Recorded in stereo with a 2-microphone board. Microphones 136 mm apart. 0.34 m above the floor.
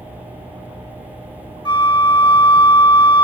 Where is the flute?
35° left (ahead or behind), 0.7 m.